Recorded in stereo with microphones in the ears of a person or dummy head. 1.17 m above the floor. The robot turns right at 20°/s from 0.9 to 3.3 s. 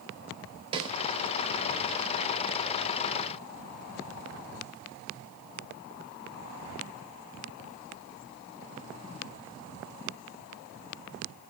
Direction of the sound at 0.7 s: 30° right (ahead or behind).